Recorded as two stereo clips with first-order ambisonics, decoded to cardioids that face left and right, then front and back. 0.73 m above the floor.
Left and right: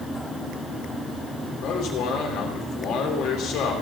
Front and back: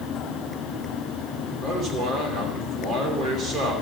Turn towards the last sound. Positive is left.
turn(degrees=125)